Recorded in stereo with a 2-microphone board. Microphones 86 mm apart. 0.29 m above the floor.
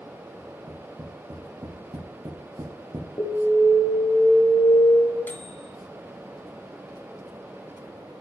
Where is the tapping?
50° right (ahead or behind), 4 m.